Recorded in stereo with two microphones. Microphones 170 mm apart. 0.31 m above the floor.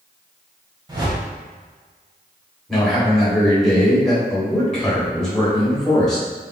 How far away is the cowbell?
I don't hear a cowbell.